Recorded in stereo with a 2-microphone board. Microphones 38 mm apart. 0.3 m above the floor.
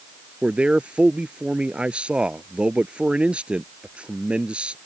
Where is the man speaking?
30° right (ahead or behind).